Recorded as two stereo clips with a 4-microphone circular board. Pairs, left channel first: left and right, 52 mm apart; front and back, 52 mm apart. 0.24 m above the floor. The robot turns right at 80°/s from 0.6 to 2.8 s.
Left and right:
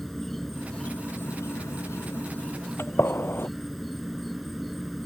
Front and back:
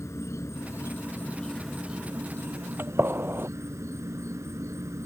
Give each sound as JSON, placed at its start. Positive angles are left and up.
{"t": 0.0, "sound": "an insect", "azimuth_deg": 5}
{"t": 2.8, "sound": "a gunshot", "azimuth_deg": 130}